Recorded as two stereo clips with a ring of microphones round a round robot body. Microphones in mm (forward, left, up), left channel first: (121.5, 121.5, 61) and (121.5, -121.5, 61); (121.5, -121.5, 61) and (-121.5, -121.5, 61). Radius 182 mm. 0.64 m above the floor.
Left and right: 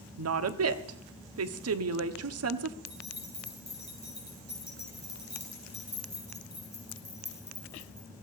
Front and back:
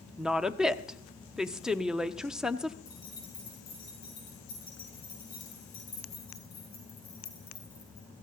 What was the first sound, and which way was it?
A woman speaking, 90° right.